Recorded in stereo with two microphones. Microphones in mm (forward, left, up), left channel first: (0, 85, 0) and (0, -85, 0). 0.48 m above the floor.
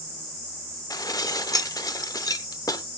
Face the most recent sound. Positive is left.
turn(degrees=20)  # may be behind; listen again after turning